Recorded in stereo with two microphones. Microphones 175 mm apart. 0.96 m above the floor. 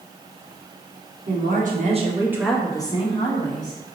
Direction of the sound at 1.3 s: 65° right (ahead or behind).